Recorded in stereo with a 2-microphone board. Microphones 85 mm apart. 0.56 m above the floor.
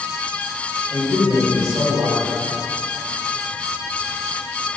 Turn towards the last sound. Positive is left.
turn(degrees=-45)  # may be behind; listen again after turning